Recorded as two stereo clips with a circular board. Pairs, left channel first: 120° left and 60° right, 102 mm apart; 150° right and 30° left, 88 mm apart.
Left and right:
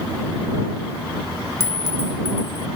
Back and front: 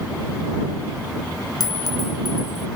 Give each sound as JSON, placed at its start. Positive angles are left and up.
{"t": 1.6, "sound": "a clink", "azimuth_deg": 180}